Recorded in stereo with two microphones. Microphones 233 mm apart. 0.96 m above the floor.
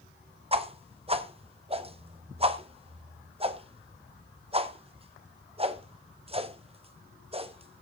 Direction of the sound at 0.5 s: 25° right (ahead or behind).